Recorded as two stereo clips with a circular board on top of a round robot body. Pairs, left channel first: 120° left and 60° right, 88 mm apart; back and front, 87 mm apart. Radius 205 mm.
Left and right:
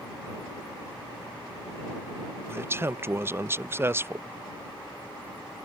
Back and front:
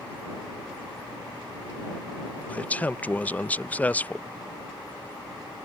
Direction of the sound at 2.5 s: 115° right.